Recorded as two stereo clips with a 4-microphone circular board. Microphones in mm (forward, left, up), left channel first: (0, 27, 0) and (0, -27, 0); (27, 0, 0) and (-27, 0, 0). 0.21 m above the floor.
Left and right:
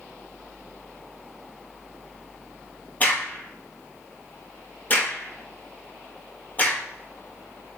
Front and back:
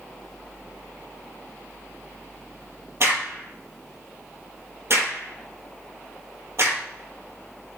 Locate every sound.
3.0 s a crack: 145° left, 4 m